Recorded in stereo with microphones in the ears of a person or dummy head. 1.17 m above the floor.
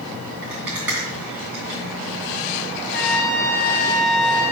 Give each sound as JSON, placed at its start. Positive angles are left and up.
{"t": 0.4, "sound": "a rattle", "side_deg": -10, "distance_m": 3.0}
{"t": 2.9, "sound": "a trumpet", "side_deg": 55, "distance_m": 0.9}